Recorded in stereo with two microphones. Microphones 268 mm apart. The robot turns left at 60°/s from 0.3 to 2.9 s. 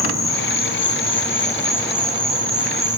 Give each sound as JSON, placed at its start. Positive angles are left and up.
{"t": 0.0, "sound": "an insect", "azimuth_deg": 95, "distance_m": 1.9}